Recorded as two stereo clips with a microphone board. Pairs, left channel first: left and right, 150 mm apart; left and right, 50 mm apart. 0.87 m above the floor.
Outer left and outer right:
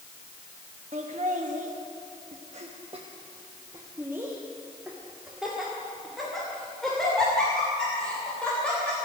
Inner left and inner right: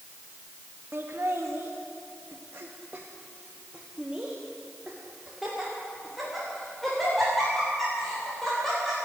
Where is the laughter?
50° right (ahead or behind), 1.4 m; by 8.9 s 5° left (ahead or behind), 4.5 m.